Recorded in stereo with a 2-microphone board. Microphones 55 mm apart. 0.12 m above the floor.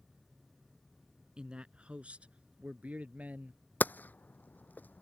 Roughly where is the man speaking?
Centre.